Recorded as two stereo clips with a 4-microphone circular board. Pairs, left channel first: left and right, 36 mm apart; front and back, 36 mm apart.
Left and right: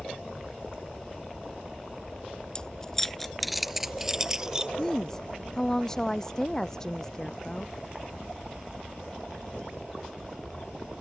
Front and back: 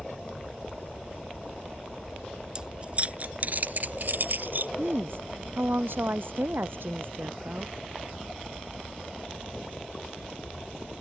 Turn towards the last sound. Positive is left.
turn(degrees=160)